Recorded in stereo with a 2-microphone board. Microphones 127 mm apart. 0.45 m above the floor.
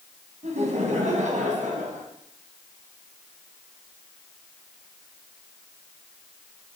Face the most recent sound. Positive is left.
turn(degrees=-75)  # may be behind; listen again after turning